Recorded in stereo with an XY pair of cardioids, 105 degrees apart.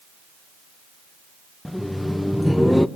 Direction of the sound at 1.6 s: 5° left.